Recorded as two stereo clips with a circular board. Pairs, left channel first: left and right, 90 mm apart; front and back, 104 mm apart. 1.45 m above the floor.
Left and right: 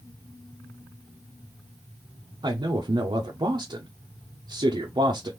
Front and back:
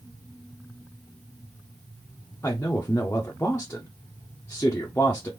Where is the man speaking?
70° right, 0.7 m.